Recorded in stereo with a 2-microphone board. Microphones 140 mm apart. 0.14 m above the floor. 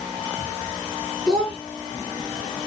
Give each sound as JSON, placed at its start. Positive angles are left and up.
{"t": 1.3, "sound": "a child speaking", "side_deg": 5, "distance_m": 1.1}